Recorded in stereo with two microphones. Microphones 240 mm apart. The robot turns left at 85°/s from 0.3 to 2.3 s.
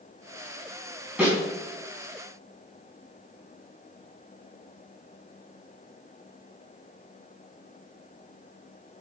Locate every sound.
1.2 s a snare drum: 5° right (ahead or behind), 5 m; by 1.4 s 20° right (ahead or behind), 5 m